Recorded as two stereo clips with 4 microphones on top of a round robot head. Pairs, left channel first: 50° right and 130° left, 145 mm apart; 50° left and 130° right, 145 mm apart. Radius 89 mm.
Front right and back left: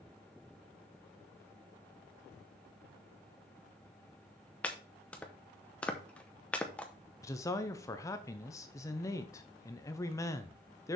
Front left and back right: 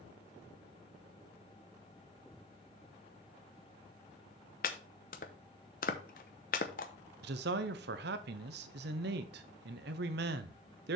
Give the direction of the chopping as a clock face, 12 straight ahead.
11 o'clock.